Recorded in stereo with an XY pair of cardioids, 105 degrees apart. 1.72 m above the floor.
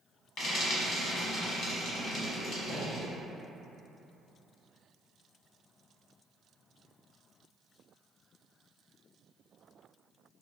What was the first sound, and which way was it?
Frying, 70° left.